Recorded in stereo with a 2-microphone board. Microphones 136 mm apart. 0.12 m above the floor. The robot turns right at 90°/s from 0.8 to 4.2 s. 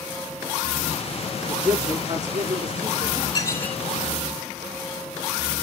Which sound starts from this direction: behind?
A man speaking, at 1.5 s.